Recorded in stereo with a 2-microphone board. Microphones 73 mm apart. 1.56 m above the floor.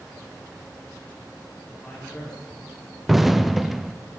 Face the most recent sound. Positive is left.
turn(degrees=0)  # may be behind; listen again after turning